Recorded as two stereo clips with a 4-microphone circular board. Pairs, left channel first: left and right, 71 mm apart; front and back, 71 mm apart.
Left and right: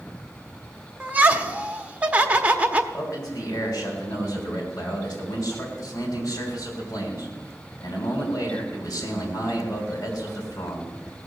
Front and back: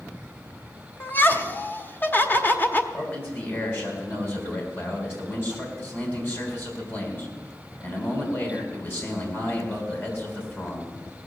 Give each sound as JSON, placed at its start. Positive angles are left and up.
{"t": 1.0, "sound": "laughter", "azimuth_deg": -35, "distance_m": 0.9}
{"t": 2.9, "sound": "a man speaking", "azimuth_deg": 60, "distance_m": 3.5}